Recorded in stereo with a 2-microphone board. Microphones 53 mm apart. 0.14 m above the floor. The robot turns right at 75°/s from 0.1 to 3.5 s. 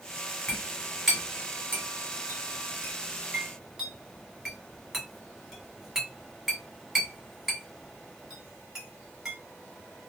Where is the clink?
40° left (ahead or behind), 1.7 m; by 9.3 s 5° right (ahead or behind), 1.7 m.